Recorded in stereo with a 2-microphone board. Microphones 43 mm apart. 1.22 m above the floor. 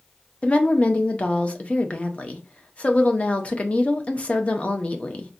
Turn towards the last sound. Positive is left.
turn(degrees=30)  # may be behind; listen again after turning